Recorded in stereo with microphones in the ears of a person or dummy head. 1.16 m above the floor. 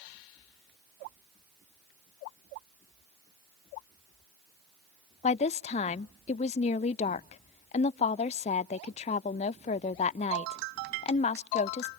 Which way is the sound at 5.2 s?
35° left (ahead or behind).